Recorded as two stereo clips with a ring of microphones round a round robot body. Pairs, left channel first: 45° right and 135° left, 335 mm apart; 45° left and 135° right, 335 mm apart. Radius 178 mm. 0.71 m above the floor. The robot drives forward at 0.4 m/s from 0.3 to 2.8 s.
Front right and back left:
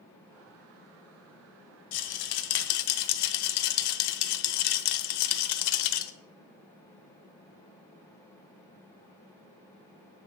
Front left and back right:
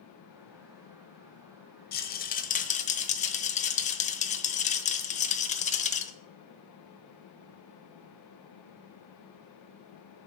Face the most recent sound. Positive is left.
turn(degrees=-25)